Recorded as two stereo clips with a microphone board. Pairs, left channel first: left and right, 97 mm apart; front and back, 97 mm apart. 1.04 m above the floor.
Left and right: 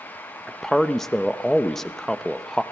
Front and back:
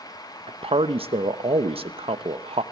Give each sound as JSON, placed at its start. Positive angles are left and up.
{"t": 0.5, "sound": "a man speaking", "azimuth_deg": 175, "distance_m": 0.9}